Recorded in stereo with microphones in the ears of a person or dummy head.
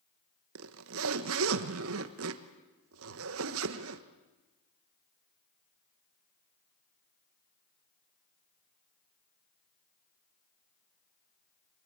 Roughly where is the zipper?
Right.